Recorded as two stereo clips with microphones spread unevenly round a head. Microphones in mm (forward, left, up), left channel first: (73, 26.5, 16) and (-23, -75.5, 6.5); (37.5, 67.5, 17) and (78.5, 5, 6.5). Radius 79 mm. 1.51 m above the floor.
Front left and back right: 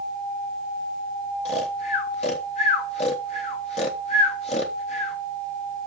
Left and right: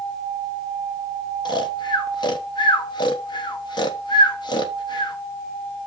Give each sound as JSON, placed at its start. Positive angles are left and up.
{"t": 1.4, "sound": "snoring", "azimuth_deg": 100, "distance_m": 1.1}